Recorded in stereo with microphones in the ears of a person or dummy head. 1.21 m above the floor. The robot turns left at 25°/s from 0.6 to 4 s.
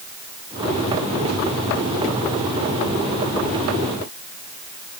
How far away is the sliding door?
I don't hear a sliding door.